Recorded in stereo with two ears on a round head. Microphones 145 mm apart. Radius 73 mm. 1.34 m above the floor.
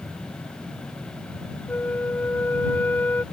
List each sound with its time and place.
1.7 s a flute: 10° left (ahead or behind)